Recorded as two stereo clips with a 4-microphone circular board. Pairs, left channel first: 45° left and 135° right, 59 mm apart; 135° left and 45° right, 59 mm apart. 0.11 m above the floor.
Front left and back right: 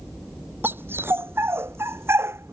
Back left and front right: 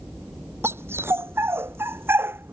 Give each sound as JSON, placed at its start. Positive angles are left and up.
{"t": 0.6, "sound": "a dog barking", "azimuth_deg": -85}